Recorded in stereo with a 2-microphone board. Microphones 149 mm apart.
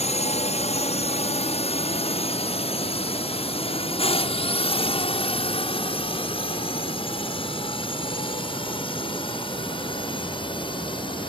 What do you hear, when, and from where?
0.0 s a drone: 45° left (ahead or behind); by 11.3 s 35° left (ahead or behind)